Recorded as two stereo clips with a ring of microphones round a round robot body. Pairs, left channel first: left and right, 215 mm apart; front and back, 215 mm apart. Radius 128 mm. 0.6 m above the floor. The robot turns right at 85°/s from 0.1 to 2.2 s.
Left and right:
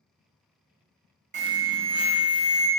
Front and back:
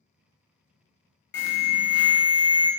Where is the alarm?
35° right, 0.9 m; by 2.7 s 40° left, 0.9 m.